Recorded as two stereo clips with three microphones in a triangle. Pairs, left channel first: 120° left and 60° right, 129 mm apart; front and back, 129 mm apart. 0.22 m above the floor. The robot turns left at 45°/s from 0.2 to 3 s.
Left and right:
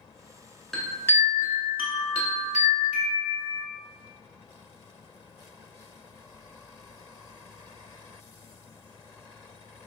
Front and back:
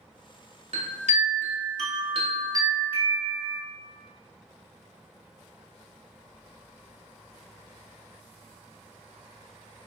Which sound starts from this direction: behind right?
A chime, at 0.7 s.